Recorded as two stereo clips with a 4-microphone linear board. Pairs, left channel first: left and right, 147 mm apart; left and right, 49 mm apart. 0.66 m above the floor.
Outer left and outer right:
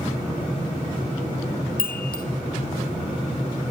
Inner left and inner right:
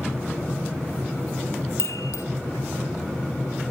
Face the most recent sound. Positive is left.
turn(degrees=80)